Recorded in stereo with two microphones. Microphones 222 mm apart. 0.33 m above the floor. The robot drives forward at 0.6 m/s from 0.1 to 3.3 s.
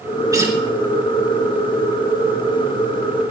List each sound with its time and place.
0.3 s a guitar: 15° right (ahead or behind), 4 m